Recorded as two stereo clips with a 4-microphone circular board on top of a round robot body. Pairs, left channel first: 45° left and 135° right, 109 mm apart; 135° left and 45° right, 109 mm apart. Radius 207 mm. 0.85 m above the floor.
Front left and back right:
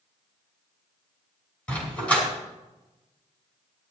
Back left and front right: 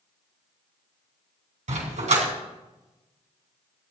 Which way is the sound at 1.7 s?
35° right.